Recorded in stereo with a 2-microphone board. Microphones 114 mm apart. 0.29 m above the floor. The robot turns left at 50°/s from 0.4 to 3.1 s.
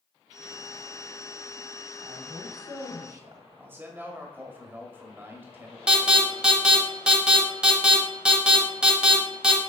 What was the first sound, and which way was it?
A woman speaking, 55° right.